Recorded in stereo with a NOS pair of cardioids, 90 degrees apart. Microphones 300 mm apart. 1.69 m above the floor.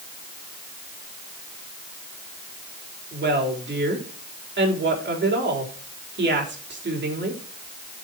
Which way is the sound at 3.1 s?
40° right.